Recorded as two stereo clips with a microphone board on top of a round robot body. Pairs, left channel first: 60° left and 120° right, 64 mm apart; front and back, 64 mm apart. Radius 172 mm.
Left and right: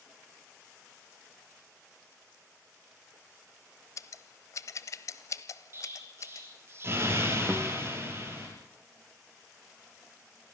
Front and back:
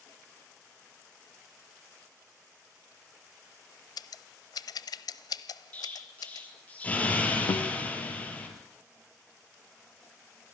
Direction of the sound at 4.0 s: 20° left.